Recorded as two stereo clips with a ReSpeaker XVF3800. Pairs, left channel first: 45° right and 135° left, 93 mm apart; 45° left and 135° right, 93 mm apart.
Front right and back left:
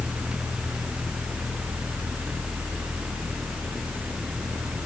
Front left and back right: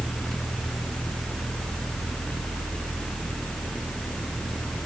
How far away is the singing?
No singing in this recording.